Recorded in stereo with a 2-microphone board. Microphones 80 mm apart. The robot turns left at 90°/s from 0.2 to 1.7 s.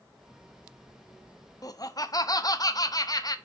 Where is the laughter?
45° left (ahead or behind), 0.6 m.